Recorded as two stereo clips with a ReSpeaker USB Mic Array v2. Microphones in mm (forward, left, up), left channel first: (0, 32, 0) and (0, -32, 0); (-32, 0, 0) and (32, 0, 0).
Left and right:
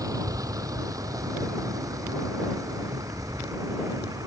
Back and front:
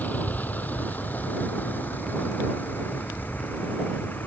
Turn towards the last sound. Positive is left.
turn(degrees=-120)